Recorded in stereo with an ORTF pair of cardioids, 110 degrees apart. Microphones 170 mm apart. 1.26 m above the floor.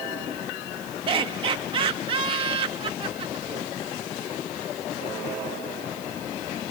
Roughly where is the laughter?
Ahead right.